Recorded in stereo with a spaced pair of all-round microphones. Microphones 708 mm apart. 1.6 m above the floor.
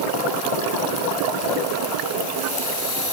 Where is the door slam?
I don't hear a door slam.